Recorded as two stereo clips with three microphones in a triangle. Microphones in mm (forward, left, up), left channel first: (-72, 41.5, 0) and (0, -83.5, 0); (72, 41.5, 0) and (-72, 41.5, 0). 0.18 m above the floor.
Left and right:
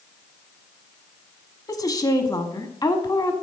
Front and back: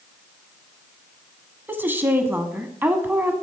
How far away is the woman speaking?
About 1.1 m.